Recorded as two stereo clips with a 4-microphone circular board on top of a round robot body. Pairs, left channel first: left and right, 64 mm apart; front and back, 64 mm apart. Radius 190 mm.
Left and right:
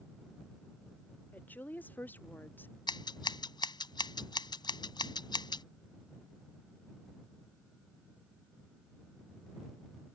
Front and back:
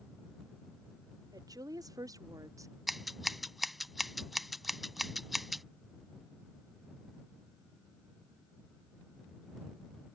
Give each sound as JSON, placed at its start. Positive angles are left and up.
{"t": 1.3, "sound": "a woman speaking", "azimuth_deg": 155}
{"t": 2.9, "sound": "scissors", "azimuth_deg": 90}